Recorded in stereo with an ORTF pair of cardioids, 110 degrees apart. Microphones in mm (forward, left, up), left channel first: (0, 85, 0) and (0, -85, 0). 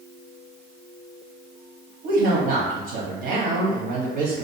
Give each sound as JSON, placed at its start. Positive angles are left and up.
{"t": 2.0, "sound": "a woman speaking", "azimuth_deg": -65, "distance_m": 0.8}